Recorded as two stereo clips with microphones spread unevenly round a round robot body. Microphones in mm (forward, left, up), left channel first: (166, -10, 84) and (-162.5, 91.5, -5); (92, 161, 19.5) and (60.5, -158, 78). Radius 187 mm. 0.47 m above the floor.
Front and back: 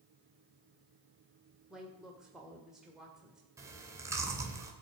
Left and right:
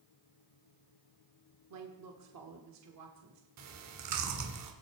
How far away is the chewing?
About 1.8 m.